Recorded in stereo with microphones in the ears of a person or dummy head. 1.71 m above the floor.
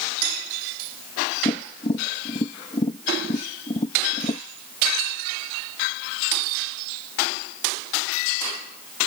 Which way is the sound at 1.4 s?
25° left (ahead or behind).